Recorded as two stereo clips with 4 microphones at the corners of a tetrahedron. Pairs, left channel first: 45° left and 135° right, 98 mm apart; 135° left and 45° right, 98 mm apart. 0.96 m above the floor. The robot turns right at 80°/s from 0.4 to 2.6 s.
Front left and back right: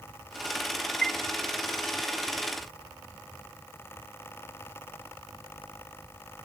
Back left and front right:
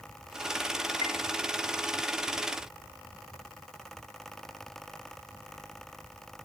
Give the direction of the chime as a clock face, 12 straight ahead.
8 o'clock.